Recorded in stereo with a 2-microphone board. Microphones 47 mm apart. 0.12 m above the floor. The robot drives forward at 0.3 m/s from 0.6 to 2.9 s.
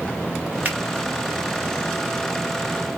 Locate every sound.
0.7 s a finger snap: 35° right (ahead or behind), 1.1 m